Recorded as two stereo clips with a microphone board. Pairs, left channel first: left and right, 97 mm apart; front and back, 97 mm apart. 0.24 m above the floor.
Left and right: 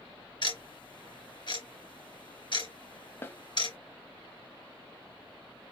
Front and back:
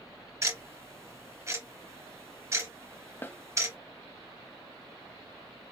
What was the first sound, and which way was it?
Ticking, 120° left.